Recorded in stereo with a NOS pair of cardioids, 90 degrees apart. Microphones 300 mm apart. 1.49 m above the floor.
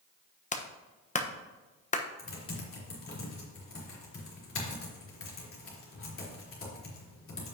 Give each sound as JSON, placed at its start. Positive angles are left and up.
{"t": 0.5, "sound": "a clap", "azimuth_deg": 25, "distance_m": 1.1}
{"t": 2.2, "sound": "typing on a keyboard", "azimuth_deg": 45, "distance_m": 3.5}